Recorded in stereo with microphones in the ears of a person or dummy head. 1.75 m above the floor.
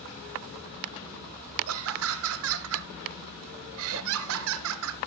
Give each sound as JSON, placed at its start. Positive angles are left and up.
{"t": 1.7, "sound": "laughter", "side_deg": -75, "distance_m": 1.1}